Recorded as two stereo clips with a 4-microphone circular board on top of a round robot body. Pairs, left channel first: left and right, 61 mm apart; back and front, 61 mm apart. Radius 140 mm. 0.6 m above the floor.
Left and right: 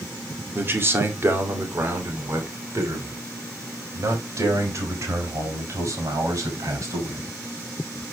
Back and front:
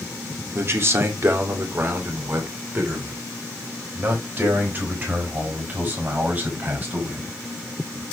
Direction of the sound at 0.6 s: 40° right.